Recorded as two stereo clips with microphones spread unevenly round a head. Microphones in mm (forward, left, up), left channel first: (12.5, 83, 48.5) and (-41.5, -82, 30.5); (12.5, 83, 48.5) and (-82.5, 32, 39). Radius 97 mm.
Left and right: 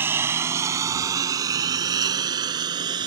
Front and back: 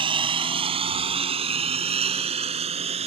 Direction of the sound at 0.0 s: 170° left.